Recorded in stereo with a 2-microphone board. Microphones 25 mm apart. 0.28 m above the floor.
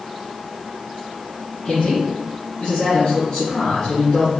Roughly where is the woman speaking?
Left.